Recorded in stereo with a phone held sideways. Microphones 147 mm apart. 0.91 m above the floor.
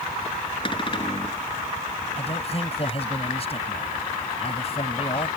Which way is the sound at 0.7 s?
35° left (ahead or behind).